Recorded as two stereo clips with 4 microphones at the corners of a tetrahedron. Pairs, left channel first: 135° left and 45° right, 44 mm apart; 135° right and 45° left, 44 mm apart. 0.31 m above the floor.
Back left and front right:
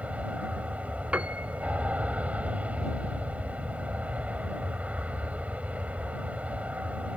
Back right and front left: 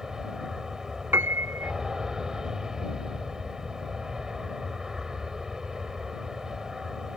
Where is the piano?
15° left.